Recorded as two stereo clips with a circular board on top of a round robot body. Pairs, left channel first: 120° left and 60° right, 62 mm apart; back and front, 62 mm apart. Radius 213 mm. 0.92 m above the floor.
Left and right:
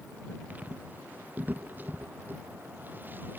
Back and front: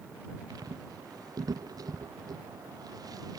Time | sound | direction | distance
0.5 | footsteps | 5° left | ?